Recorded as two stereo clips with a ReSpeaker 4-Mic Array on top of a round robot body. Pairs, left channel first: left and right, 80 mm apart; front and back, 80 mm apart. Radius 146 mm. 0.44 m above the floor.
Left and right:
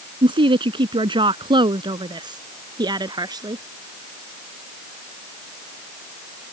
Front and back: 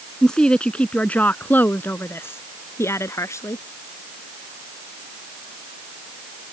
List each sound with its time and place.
0.2 s a woman speaking: 85° right; by 3.6 s 55° right